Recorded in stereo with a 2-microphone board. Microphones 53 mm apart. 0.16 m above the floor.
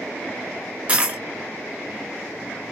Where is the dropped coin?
25° right (ahead or behind), 0.5 m.